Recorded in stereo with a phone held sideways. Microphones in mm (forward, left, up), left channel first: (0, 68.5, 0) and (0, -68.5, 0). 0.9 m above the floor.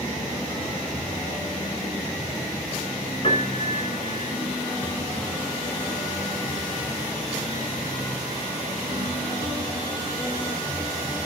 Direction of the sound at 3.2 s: 45° left (ahead or behind).